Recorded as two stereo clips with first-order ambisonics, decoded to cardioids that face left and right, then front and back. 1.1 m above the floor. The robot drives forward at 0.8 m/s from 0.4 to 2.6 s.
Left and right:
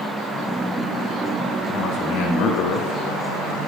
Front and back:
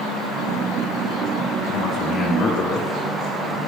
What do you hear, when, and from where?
1.7 s a man speaking: 45° left, 1.8 m; by 3.6 s 70° left, 1.4 m